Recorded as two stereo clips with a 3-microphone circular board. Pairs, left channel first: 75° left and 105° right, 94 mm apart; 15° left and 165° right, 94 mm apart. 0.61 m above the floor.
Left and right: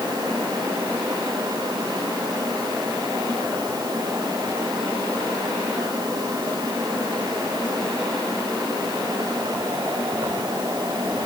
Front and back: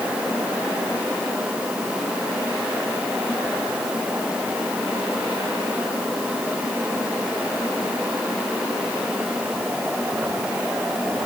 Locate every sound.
Only background noise.